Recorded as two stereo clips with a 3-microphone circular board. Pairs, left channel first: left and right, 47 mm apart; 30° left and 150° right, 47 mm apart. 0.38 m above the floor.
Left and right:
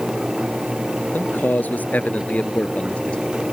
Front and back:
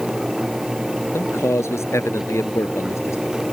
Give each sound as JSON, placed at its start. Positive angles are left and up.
{"t": 1.1, "sound": "a man speaking", "azimuth_deg": 45}